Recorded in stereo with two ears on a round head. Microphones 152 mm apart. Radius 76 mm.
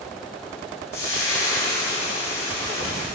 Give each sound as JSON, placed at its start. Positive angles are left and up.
{"t": 0.9, "sound": "frying", "side_deg": 15, "distance_m": 2.0}